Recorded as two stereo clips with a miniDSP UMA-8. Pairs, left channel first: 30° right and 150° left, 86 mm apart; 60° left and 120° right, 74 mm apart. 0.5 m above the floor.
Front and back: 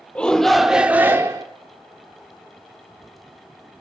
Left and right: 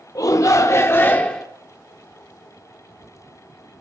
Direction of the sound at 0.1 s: 45° left.